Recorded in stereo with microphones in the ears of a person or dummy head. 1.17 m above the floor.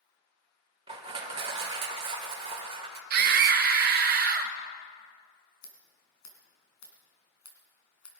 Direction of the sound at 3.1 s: 50° right (ahead or behind).